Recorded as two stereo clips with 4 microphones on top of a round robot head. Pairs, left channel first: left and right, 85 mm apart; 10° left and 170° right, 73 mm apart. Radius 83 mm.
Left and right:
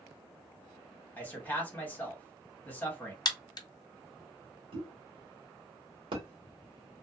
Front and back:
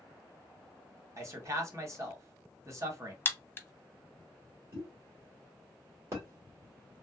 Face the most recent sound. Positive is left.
turn(degrees=-115)